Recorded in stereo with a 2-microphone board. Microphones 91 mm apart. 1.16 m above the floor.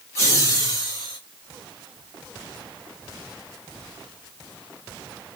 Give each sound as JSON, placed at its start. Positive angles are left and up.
{"t": 0.1, "sound": "laughter", "side_deg": 35, "distance_m": 1.1}